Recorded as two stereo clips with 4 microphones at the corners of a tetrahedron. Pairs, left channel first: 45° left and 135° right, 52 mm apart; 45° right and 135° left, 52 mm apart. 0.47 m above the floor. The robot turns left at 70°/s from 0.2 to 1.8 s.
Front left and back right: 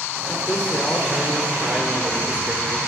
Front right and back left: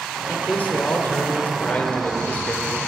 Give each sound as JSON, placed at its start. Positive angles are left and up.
{"t": 0.3, "sound": "a man speaking", "azimuth_deg": 15, "distance_m": 1.6}